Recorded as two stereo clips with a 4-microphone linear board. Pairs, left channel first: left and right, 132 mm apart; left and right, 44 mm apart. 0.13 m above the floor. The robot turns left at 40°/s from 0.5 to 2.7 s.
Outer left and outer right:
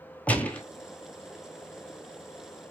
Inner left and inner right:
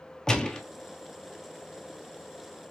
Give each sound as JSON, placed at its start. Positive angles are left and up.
{"t": 0.3, "sound": "a gunshot", "side_deg": 10, "distance_m": 0.8}